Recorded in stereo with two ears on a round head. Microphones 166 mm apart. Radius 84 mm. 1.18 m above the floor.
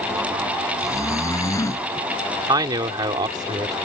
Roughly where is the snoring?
Centre.